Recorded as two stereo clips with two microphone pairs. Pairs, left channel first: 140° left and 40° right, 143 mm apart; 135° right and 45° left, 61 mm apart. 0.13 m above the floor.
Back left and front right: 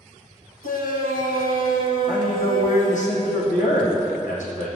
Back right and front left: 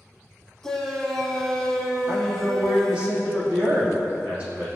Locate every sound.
0.6 s a shout: 140° left, 4 m
2.1 s a man speaking: 110° left, 5.5 m